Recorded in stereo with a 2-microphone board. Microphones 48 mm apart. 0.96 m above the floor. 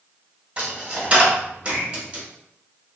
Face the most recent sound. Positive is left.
turn(degrees=-25)  # may be behind; listen again after turning